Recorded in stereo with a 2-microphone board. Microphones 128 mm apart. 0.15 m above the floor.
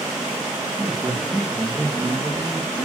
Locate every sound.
0.8 s a man speaking: 10° right (ahead or behind), 4 m; by 2.9 s 10° left (ahead or behind), 4 m